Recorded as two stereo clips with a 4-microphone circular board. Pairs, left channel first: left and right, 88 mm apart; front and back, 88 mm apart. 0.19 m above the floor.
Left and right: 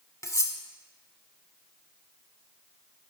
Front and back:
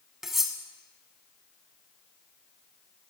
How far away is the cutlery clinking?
About 0.8 m.